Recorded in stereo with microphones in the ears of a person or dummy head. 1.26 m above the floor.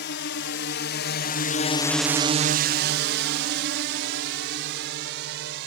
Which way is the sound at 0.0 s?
55° left (ahead or behind).